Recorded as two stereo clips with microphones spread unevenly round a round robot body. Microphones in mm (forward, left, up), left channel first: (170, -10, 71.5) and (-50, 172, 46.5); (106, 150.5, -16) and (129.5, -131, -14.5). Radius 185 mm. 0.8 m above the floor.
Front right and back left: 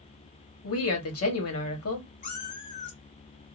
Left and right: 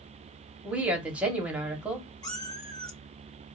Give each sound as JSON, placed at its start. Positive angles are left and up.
{"t": 0.6, "sound": "a woman speaking", "azimuth_deg": 0, "distance_m": 1.5}
{"t": 2.2, "sound": "a cat meowing", "azimuth_deg": 20, "distance_m": 2.5}